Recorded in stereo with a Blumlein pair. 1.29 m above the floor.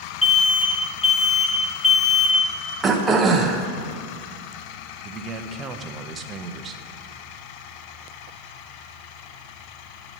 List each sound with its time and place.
0.2 s an alarm: 15° left, 1.6 m
2.8 s throat clearing: 15° right, 0.7 m
5.0 s a man speaking: 25° right, 0.6 m